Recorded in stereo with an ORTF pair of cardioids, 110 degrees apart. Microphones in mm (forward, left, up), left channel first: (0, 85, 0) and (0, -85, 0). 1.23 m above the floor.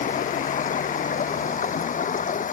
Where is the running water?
45° left.